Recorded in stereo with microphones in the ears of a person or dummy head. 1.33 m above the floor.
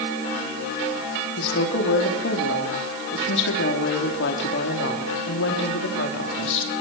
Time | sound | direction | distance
1.4 | a woman speaking | 75° left (ahead or behind) | 3.5 m